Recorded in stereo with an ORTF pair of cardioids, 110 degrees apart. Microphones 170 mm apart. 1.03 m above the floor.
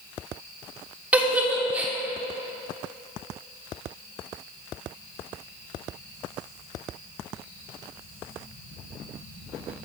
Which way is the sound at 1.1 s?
10° right.